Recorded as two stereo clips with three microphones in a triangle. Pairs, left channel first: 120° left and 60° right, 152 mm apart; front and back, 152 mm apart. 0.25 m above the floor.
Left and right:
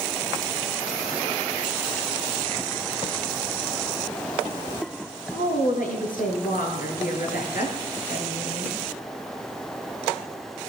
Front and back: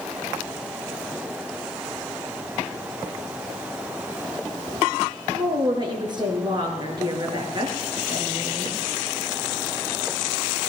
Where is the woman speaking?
125° left, 4 m.